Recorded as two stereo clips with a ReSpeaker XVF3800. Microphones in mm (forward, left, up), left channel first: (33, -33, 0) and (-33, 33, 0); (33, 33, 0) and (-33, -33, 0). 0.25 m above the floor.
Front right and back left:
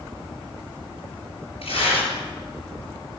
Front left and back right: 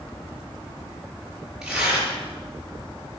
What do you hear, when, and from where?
1.6 s tearing paper: 50° right, 4.5 m